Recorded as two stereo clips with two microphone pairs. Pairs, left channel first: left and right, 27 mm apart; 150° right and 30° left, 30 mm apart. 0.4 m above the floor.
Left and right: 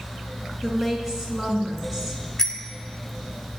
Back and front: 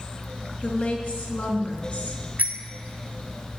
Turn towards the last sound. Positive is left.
turn(degrees=10)